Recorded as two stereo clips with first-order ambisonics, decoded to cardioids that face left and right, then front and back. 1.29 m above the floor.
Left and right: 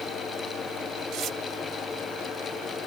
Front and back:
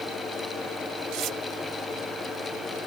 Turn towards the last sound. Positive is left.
turn(degrees=-140)